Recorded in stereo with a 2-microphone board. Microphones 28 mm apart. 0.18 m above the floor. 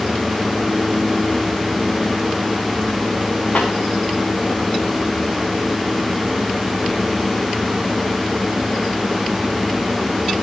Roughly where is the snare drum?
Left.